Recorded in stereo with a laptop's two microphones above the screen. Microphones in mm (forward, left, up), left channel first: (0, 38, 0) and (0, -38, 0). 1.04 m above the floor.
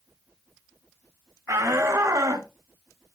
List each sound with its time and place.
1.5 s a shout: 50° right (ahead or behind), 1.8 m; by 2.5 s 55° right (ahead or behind), 2.5 m